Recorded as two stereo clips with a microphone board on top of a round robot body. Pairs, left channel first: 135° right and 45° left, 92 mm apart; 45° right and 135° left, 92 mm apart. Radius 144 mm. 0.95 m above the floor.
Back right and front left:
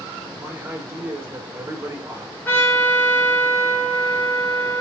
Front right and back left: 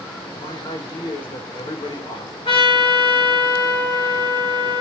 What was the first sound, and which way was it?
A man speaking, 15° right.